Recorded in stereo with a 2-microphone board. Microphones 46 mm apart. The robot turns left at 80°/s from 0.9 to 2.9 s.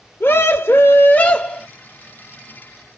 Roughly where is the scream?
Ahead left.